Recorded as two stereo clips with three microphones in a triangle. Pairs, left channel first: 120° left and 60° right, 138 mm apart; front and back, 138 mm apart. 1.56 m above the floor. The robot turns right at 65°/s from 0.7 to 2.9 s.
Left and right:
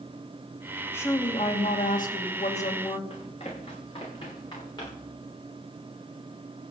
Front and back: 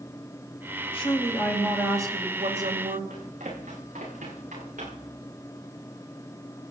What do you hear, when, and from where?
0.9 s a woman speaking: 45° left, 2.5 m; by 3.0 s 175° left, 2.5 m
3.1 s running footsteps: 160° left, 8.5 m; by 5.1 s straight behind, 9.5 m